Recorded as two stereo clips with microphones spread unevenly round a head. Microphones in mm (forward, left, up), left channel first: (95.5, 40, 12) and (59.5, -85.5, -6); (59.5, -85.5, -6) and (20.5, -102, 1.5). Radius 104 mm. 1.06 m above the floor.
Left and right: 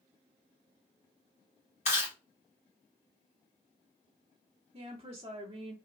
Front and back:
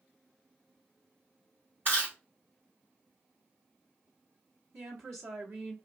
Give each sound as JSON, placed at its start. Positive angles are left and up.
{"t": 1.9, "sound": "chewing", "azimuth_deg": 130, "distance_m": 1.4}
{"t": 4.7, "sound": "a woman speaking", "azimuth_deg": -175, "distance_m": 2.0}